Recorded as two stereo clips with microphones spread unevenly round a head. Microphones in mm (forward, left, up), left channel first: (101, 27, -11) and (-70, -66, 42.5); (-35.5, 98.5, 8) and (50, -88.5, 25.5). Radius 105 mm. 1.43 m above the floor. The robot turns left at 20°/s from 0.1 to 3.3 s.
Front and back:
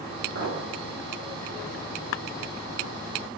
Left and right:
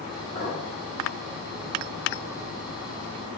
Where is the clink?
Straight behind, 3 m; by 0.6 s 175° left, 3 m.